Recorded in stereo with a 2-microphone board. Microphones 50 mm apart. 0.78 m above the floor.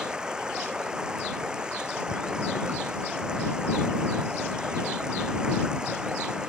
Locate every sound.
0.0 s running water: 20° right (ahead or behind)